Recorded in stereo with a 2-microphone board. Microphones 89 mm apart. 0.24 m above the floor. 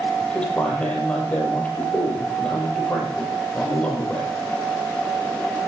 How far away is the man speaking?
About 7 m.